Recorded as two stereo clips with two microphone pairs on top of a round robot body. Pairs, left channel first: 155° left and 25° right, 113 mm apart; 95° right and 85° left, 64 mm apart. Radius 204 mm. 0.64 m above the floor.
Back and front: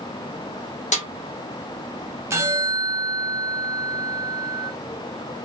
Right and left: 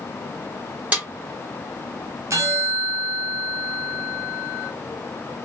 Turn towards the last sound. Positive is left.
turn(degrees=45)